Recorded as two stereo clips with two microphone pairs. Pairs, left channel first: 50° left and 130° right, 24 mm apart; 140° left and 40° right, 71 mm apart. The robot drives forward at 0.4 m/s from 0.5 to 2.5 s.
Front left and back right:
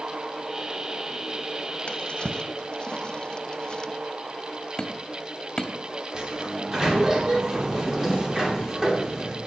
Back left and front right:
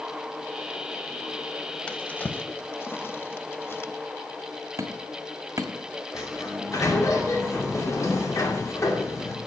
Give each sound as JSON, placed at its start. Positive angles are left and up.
{"t": 1.9, "sound": "a drawer", "azimuth_deg": 70, "distance_m": 0.7}
{"t": 4.8, "sound": "hammering", "azimuth_deg": -10, "distance_m": 1.2}
{"t": 6.1, "sound": "a sliding door", "azimuth_deg": 175, "distance_m": 2.5}